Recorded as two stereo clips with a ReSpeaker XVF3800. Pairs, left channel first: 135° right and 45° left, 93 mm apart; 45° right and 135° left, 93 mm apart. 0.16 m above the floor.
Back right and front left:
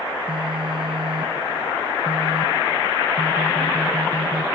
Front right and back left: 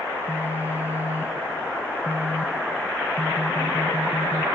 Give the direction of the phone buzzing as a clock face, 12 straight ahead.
10 o'clock.